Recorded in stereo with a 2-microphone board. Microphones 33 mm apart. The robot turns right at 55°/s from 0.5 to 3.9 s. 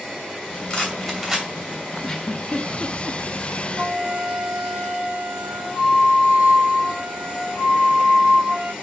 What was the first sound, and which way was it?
A rattle, 30° left (ahead or behind).